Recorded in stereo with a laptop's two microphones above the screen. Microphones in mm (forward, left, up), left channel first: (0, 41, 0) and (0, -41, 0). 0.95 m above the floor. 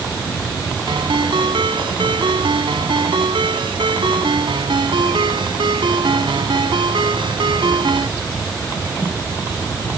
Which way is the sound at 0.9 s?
80° right.